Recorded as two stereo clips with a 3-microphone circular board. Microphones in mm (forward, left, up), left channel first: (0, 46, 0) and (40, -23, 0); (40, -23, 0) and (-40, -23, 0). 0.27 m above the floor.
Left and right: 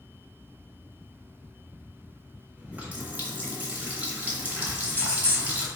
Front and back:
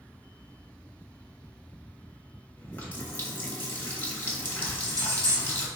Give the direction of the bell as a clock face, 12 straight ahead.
6 o'clock.